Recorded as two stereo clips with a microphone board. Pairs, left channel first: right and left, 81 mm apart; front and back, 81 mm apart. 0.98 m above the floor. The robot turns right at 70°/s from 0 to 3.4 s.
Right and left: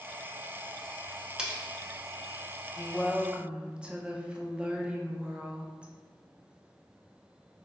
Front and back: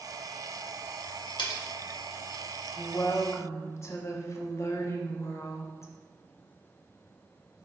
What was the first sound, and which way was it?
Cutlery clinking, 10° left.